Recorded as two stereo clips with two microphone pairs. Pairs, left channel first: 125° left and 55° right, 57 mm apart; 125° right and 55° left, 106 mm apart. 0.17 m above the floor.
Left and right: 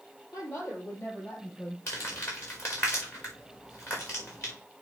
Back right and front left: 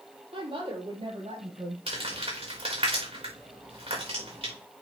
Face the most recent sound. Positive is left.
turn(degrees=80)